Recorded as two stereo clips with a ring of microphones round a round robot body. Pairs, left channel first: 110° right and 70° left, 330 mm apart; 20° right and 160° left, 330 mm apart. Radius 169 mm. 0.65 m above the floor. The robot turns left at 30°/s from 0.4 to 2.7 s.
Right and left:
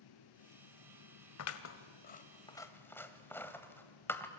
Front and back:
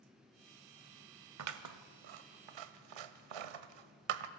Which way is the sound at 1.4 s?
155° right.